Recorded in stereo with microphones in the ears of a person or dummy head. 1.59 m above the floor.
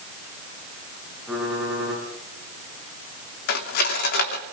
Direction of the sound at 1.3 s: 5° right (ahead or behind).